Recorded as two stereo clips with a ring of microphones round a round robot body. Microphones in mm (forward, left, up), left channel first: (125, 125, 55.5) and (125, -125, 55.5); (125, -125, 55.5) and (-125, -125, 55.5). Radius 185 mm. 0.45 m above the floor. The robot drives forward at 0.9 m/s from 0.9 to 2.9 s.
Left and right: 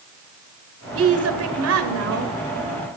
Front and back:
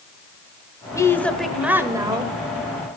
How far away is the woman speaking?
About 2 m.